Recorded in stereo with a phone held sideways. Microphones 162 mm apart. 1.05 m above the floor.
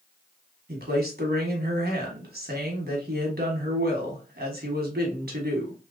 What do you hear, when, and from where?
0.7 s a man speaking: 75° right (ahead or behind), 1.3 m